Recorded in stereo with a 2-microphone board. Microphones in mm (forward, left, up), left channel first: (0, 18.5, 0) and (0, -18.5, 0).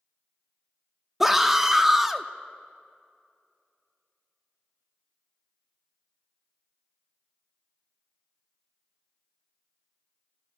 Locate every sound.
1.2 s a scream: 10° right (ahead or behind), 0.6 m